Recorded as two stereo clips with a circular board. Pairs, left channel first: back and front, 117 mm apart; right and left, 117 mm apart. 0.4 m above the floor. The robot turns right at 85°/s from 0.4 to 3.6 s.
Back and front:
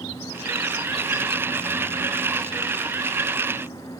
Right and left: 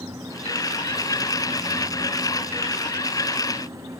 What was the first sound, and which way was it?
Only background noise.